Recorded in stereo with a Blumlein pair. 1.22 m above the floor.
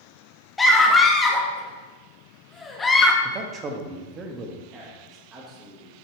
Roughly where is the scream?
Ahead.